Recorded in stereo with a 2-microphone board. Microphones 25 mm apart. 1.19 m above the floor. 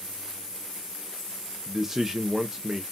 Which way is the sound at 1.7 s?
15° right (ahead or behind).